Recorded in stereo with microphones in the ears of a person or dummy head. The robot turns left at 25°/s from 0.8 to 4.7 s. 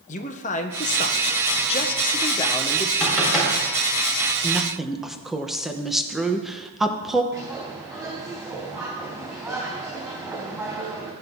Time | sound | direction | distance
0.1 | a man speaking | 90° left | 0.7 m
3.0 | knocking | 15° left (ahead or behind) | 6 m
4.4 | a woman speaking | 10° left (ahead or behind) | 0.9 m
7.3 | a bird | 20° right (ahead or behind) | 3.5 m